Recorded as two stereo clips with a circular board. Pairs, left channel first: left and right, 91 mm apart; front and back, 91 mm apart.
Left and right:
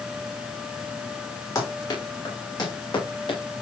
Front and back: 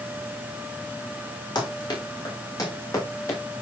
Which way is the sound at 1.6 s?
45° left.